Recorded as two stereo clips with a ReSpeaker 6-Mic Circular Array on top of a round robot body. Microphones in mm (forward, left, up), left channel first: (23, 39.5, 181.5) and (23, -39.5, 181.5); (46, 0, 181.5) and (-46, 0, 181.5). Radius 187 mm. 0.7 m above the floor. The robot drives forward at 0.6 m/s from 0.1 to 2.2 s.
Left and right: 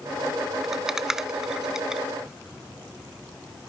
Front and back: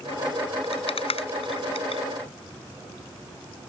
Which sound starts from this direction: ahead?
A rattle, at 0.6 s.